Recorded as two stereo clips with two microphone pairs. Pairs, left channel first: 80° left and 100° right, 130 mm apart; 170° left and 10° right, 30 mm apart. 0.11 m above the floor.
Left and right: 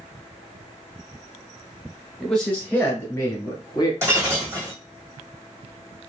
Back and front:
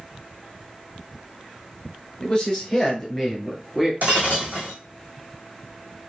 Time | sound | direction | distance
2.2 | a man speaking | 165° left | 1.4 m
4.0 | breaking glass | 30° right | 2.0 m